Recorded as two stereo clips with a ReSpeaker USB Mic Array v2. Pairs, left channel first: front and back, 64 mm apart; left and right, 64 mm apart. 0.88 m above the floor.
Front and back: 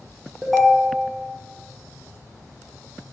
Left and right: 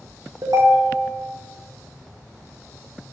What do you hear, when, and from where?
0.4 s a ringtone: 90° right, 0.5 m